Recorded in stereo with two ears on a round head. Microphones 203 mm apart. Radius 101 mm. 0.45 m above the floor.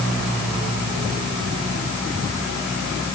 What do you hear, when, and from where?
Only background noise.